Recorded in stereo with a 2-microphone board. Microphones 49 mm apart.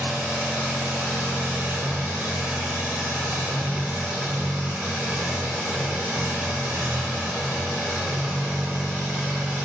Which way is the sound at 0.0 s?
60° right (ahead or behind).